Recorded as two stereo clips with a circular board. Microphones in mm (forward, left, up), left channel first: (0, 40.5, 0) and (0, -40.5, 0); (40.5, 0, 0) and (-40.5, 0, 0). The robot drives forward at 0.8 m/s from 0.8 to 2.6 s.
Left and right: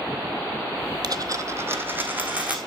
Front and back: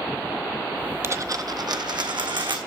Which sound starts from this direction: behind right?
A dropped coin, at 1.0 s.